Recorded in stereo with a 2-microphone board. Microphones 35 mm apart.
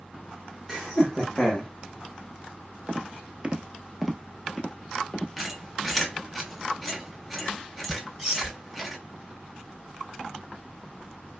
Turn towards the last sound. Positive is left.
turn(degrees=-10)  # may be behind; listen again after turning